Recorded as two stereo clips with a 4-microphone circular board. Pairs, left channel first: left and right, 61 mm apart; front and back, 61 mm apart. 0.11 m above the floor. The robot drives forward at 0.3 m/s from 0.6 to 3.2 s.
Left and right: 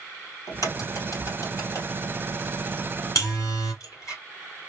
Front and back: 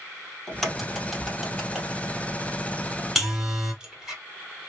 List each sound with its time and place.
0.5 s a crack: 85° left, 2.5 m; by 4.2 s 105° left, 3 m
3.1 s a buzzer: 95° left, 2.5 m